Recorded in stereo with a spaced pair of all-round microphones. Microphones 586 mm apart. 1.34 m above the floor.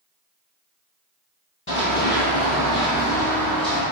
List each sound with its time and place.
1.7 s running footsteps: 20° left (ahead or behind), 1.4 m; by 3.8 s centre (ahead or behind), 1.7 m